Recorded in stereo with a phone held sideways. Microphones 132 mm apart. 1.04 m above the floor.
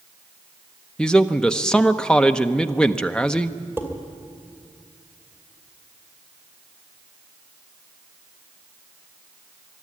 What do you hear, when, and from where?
1.0 s a man speaking: 5° left (ahead or behind), 0.8 m
3.8 s dishes clattering: 15° right (ahead or behind), 2.5 m